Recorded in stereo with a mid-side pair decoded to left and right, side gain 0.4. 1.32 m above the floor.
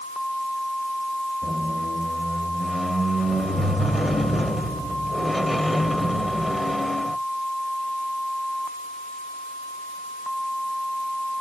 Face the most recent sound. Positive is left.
turn(degrees=0)